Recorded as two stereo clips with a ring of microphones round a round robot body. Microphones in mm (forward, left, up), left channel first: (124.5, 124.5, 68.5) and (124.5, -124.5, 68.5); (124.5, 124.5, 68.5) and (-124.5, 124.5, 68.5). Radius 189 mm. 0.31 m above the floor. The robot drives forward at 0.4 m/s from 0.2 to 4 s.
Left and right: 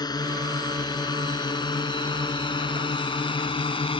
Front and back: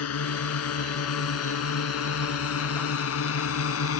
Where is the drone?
15° left; by 4.0 s 20° left.